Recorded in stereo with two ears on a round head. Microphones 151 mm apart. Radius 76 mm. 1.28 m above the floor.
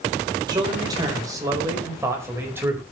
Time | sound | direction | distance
0.5 | a man speaking | 25° right (ahead or behind) | 4.5 m